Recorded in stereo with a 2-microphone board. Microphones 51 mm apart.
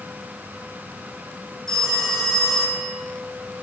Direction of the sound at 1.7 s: 10° left (ahead or behind).